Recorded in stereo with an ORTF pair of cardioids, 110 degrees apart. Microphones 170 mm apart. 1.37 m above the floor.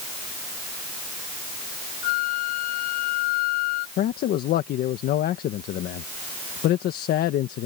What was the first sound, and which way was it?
A flute, 70° left.